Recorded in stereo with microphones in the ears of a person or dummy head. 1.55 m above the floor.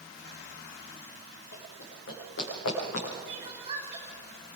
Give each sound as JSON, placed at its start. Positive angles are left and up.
{"t": 1.5, "sound": "running footsteps", "side_deg": 65, "distance_m": 6.0}
{"t": 3.3, "sound": "crying", "side_deg": -25, "distance_m": 5.5}